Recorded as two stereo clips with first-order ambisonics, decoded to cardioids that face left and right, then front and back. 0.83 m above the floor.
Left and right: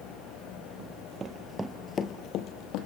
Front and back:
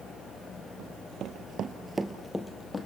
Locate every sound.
0.8 s running footsteps: 135° right, 1.5 m; by 2.9 s 75° left, 1.6 m